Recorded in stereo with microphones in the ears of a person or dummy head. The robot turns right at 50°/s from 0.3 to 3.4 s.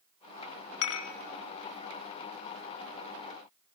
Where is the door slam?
No door slam in this recording.